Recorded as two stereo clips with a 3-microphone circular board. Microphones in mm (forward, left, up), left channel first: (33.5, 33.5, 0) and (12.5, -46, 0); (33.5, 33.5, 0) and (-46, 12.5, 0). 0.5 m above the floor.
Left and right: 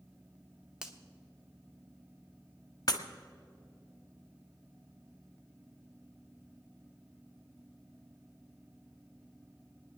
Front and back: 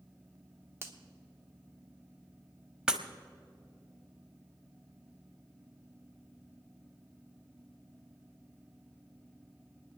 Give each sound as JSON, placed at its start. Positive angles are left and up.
{"t": 0.8, "sound": "a finger snap", "azimuth_deg": -175, "distance_m": 1.1}
{"t": 2.9, "sound": "breaking glass", "azimuth_deg": 115, "distance_m": 1.0}